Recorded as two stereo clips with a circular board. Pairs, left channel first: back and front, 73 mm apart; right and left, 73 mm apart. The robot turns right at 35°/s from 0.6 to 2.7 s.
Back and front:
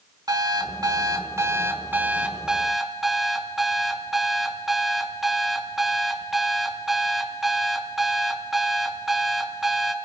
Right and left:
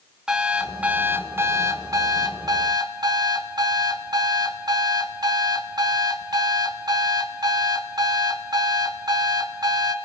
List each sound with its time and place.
0.3 s an alarm clock: 10° left, 1.1 m; by 9.9 s 85° left, 1.1 m